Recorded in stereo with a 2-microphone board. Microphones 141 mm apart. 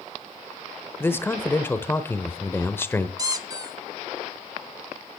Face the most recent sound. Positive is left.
turn(degrees=-25)  # may be behind; listen again after turning